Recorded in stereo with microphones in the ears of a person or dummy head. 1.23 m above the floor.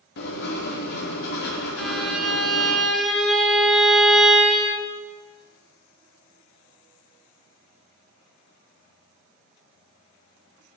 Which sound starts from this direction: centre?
A violin, at 1.8 s.